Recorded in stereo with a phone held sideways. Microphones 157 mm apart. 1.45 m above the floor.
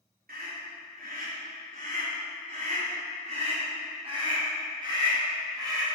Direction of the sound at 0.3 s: 75° right (ahead or behind).